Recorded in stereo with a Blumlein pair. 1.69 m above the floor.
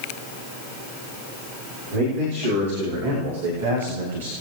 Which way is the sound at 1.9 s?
55° right.